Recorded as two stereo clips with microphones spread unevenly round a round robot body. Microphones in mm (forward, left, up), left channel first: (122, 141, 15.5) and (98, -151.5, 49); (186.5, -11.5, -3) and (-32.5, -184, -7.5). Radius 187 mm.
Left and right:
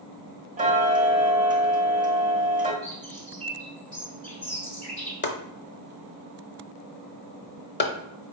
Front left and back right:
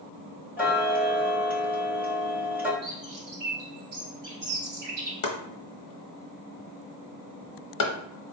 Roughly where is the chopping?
Ahead left.